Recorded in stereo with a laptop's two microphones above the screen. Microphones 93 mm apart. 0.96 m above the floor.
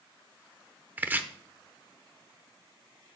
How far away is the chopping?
About 0.7 m.